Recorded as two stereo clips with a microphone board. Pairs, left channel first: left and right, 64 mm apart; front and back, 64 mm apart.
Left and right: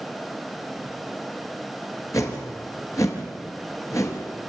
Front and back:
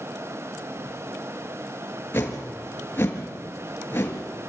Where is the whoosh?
55° left, 3.5 m.